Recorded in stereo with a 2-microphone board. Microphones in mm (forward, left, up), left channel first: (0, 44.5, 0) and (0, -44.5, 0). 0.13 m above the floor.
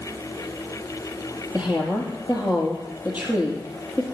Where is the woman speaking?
20° right (ahead or behind), 4.5 m.